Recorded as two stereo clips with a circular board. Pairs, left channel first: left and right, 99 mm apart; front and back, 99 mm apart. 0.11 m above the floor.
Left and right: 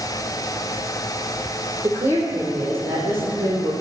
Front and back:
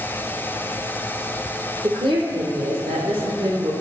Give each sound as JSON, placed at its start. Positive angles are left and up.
{"t": 1.8, "sound": "a woman speaking", "azimuth_deg": -150, "distance_m": 2.5}